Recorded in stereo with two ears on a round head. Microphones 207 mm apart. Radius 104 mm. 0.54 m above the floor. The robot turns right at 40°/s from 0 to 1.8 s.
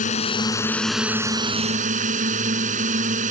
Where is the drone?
145° left; by 3.3 s 145° right.